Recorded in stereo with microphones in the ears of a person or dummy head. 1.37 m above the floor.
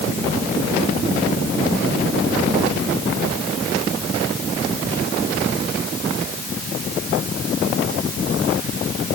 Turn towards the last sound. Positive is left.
No sound to turn to.